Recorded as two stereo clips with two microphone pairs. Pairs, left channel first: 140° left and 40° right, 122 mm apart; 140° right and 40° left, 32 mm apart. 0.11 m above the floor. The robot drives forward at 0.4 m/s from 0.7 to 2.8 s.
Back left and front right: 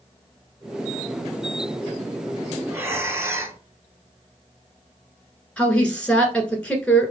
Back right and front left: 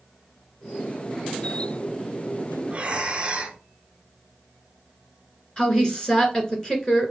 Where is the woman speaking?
150° right, 1.2 m.